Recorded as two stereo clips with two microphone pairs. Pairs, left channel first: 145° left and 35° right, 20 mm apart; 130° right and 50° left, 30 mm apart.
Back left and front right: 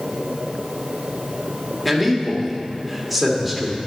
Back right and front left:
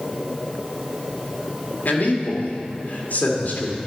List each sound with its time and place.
1.9 s a man speaking: 120° right, 2 m